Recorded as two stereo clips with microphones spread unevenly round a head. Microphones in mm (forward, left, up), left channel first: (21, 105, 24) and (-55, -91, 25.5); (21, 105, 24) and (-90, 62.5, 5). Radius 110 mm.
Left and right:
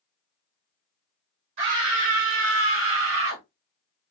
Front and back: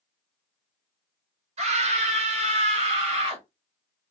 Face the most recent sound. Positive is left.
turn(degrees=-105)